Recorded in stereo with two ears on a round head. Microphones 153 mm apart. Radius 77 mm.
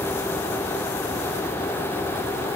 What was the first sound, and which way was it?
Only background noise.